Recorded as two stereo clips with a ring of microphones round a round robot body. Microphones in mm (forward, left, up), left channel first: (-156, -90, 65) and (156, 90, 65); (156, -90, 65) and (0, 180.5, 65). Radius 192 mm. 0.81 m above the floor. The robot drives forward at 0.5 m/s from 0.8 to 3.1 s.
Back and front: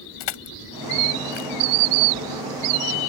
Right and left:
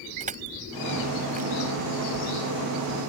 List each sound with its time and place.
0.2 s crushing: 170° right